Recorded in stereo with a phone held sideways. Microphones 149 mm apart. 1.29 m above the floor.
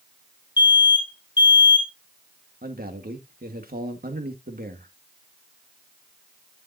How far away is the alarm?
About 3 m.